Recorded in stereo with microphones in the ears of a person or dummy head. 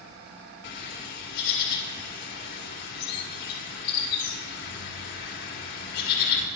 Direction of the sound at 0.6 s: 55° left (ahead or behind).